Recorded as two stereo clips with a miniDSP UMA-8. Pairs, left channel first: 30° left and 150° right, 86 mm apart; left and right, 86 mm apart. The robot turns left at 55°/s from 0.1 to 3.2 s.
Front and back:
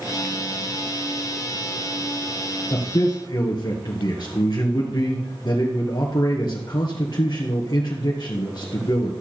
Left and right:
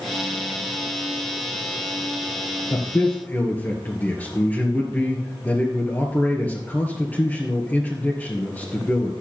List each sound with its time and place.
2.7 s a man speaking: 50° left, 1.7 m; by 9.1 s 25° left, 1.7 m